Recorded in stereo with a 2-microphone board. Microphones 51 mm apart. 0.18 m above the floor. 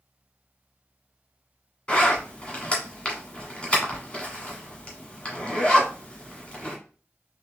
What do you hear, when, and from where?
1.9 s a zipper: 20° left (ahead or behind), 1.4 m